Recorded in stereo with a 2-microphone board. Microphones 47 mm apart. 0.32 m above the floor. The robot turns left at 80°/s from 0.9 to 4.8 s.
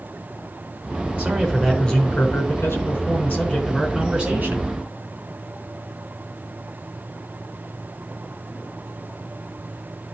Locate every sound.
1.2 s a man speaking: 140° right, 4 m; by 4.7 s 65° right, 4 m